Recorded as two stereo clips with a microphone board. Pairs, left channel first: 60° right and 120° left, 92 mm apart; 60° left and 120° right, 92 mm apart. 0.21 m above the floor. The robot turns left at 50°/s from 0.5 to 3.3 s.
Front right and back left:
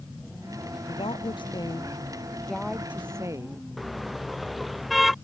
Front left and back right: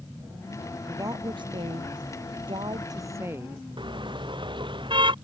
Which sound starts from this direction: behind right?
A car horn, at 3.8 s.